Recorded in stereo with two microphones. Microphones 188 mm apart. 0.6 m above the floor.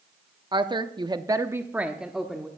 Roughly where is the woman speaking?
Right.